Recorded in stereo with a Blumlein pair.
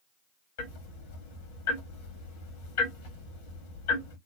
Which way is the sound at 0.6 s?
55° left.